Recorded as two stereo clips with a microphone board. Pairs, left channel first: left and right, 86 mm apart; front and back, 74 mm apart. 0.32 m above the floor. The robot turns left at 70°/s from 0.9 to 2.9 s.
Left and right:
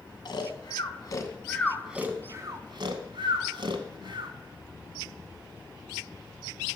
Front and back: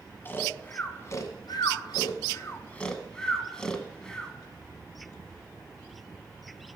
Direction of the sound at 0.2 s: 60° left.